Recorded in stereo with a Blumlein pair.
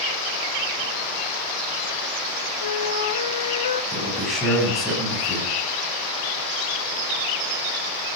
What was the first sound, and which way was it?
A flute, 60° left.